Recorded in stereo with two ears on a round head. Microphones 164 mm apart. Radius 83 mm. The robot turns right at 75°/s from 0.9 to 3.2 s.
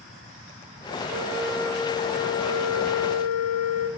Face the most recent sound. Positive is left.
turn(degrees=125)